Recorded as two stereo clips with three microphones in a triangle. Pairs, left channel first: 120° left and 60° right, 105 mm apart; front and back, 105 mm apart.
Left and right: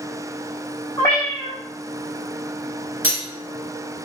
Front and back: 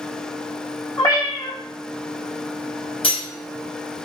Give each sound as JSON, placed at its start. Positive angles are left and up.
{"t": 1.0, "sound": "a cat meowing", "azimuth_deg": 60, "distance_m": 1.2}
{"t": 3.0, "sound": "cutlery clinking", "azimuth_deg": 5, "distance_m": 1.4}